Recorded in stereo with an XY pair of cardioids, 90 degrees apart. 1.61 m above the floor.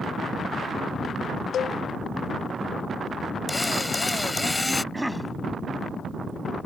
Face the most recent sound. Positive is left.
turn(degrees=-5)